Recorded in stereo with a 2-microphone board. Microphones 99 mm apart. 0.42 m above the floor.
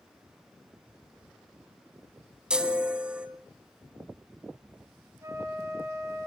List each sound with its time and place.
2.5 s a chime: 10° right (ahead or behind), 1.8 m
5.2 s a flute: 30° right (ahead or behind), 2.5 m